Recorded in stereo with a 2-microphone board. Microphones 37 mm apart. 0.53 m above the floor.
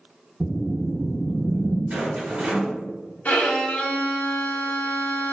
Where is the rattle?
30° right (ahead or behind), 1.4 m.